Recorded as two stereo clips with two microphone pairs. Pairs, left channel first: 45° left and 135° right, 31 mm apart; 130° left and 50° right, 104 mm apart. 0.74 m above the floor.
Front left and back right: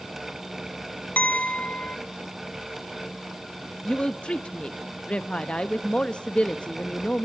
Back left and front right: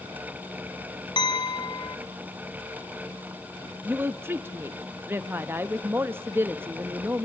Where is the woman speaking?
5° left, 0.6 m.